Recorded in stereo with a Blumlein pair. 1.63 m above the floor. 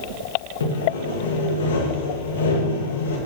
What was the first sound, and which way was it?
Sawing, 65° left.